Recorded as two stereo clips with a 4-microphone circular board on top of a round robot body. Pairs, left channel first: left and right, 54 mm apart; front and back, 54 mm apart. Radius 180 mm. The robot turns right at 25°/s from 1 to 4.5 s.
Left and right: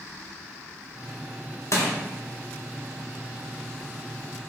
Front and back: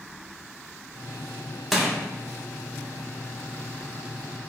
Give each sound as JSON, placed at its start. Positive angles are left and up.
{"t": 1.7, "sound": "crushing", "azimuth_deg": 95, "distance_m": 2.0}